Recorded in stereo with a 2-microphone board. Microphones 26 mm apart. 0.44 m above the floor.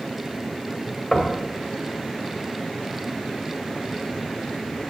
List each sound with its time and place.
1.1 s knocking: 10° left (ahead or behind), 1.2 m